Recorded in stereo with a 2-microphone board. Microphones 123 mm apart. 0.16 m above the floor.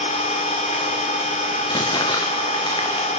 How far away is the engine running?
About 4 m.